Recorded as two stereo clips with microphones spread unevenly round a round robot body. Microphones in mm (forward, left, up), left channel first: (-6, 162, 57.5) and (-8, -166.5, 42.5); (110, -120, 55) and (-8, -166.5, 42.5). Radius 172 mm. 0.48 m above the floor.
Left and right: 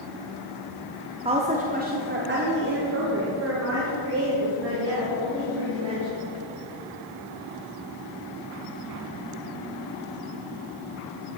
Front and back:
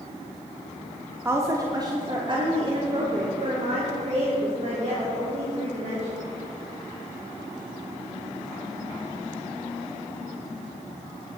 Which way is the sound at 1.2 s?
135° right.